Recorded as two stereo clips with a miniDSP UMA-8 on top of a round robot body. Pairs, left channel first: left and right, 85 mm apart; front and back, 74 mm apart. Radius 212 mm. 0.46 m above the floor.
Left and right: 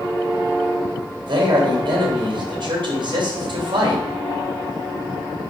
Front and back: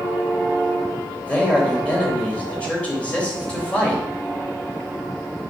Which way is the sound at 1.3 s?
70° right.